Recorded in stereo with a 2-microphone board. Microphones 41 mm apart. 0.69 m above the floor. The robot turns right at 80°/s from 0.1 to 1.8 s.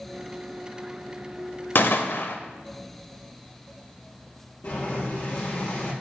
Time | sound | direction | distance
1.8 | a gunshot | 60° left (ahead or behind) | 0.9 m
4.6 | boiling | 55° left (ahead or behind) | 4 m